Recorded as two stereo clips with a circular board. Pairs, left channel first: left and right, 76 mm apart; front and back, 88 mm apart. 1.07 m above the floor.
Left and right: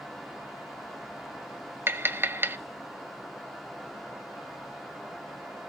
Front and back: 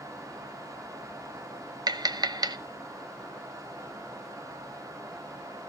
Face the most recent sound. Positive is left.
turn(degrees=-145)